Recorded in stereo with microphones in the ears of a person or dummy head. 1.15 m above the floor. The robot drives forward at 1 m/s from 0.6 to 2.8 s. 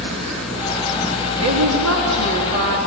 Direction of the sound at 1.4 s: 75° right (ahead or behind).